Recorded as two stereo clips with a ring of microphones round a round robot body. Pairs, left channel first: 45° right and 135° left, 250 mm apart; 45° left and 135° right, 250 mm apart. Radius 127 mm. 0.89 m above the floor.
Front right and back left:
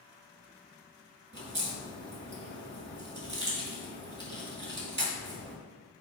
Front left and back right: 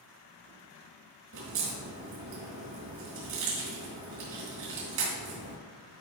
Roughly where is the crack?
Behind.